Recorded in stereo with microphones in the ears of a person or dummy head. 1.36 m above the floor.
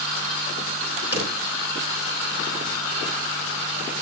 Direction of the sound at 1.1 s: 10° right (ahead or behind).